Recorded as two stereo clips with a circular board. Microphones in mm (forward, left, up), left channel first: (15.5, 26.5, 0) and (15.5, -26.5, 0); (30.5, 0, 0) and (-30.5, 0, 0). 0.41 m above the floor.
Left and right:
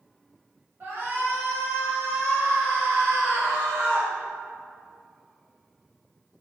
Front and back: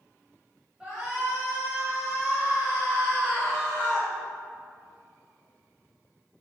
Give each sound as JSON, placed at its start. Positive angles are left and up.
{"t": 0.8, "sound": "a shout", "azimuth_deg": -110, "distance_m": 2.5}